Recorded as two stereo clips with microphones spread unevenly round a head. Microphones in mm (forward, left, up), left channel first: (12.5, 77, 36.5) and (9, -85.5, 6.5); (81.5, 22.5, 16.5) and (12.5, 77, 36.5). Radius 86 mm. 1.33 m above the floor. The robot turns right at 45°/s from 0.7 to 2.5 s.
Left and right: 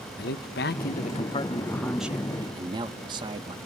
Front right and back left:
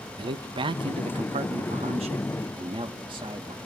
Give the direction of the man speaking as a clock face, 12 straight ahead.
8 o'clock.